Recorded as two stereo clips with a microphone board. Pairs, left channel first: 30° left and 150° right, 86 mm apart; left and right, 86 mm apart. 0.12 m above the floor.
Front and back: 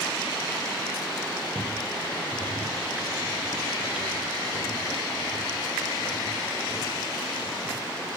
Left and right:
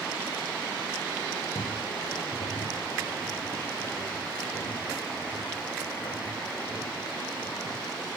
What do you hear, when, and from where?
1.6 s footsteps: 125° left, 2 m; by 7.8 s 60° left, 3.5 m